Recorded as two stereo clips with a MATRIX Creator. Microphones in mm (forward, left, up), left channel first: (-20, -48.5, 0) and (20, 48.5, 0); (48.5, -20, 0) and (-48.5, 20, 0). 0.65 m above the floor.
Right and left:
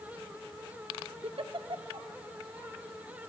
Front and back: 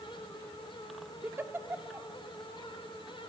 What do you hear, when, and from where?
1.2 s a giggle: 90° left, 0.7 m